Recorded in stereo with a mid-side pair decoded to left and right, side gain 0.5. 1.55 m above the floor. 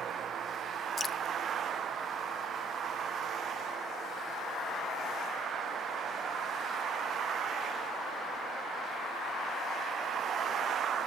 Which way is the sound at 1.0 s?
25° left.